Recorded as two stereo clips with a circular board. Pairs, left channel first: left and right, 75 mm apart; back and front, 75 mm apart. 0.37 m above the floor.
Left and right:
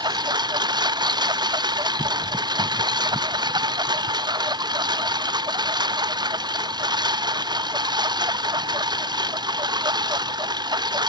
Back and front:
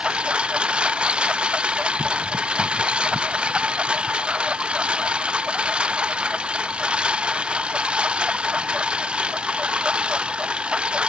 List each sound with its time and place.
0.0 s a lawn mower: 75° right